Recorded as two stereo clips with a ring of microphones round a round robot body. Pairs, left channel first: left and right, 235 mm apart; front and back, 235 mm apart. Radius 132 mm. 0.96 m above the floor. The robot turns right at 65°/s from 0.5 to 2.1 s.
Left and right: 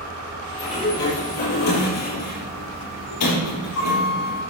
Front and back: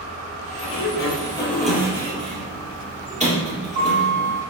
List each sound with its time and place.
0.6 s a sliding door: 20° left, 5 m; by 4.4 s 120° left, 5 m